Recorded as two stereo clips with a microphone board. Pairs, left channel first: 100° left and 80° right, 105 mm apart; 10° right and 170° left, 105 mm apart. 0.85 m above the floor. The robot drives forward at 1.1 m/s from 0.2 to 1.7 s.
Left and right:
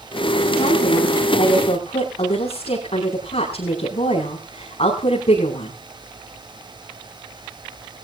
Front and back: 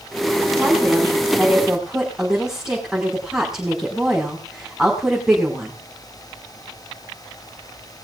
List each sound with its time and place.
0.6 s a woman speaking: 70° left, 6 m; by 5.7 s 85° left, 5.5 m